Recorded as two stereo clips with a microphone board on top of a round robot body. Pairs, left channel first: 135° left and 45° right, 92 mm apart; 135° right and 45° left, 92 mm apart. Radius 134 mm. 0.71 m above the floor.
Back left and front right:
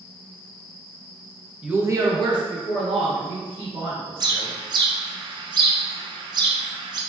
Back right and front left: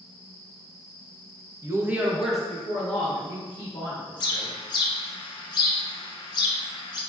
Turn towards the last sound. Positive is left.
turn(degrees=-90)